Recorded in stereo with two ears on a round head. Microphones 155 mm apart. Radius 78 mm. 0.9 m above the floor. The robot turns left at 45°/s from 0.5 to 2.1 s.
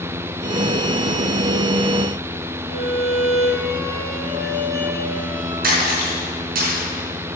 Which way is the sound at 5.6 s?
60° right (ahead or behind).